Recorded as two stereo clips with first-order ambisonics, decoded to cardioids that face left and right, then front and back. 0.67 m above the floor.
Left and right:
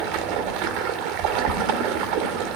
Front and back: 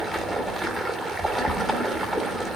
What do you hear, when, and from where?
0.0 s running water: 100° right, 1.7 m